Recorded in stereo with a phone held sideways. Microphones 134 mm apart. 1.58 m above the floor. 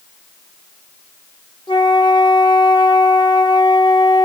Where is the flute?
35° left (ahead or behind), 0.9 m.